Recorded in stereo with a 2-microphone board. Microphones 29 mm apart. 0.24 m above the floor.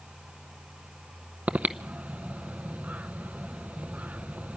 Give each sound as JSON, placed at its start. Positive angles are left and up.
{"t": 1.5, "sound": "breathing", "side_deg": -65, "distance_m": 0.6}